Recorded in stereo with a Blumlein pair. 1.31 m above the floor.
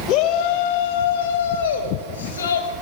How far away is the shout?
About 1.5 m.